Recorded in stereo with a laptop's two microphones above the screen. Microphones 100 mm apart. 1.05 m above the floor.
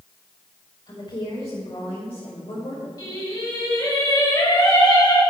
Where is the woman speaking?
60° left (ahead or behind), 4.5 m; by 2.9 s 70° left (ahead or behind), 2.5 m.